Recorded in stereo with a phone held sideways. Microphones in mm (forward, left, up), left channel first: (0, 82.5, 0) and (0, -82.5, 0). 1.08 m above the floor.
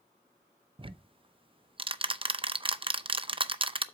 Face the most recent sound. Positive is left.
turn(degrees=-35)  # may be behind; listen again after turning